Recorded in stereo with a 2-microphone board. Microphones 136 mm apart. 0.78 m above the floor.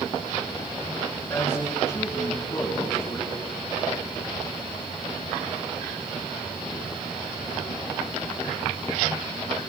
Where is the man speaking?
25° left (ahead or behind), 7.5 m.